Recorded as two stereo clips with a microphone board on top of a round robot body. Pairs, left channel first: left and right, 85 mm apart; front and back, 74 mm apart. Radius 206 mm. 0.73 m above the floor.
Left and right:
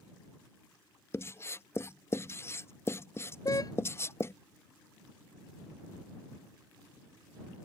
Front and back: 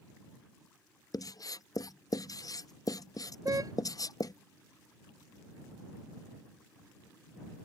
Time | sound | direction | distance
1.1 | writing | 30° left | ?
3.5 | a car horn | 135° left | ?